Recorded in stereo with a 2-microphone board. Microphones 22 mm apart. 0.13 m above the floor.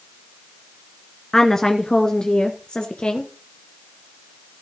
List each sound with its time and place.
1.3 s a woman speaking: 25° left (ahead or behind), 1.4 m; by 3.3 s 50° left (ahead or behind), 1.6 m